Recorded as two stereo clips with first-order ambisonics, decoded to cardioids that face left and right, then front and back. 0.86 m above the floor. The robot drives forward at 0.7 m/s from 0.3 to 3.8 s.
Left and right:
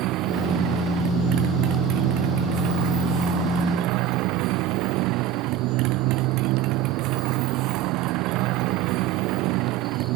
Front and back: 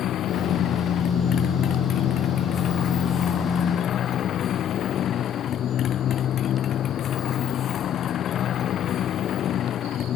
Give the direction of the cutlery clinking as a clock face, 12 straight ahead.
No cutlery clinking in this recording.